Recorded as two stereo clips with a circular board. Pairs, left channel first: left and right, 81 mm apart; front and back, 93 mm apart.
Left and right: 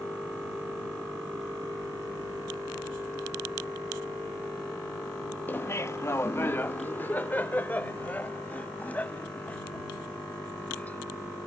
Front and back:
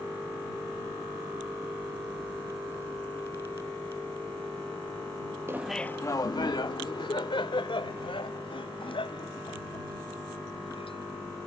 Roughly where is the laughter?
Behind left.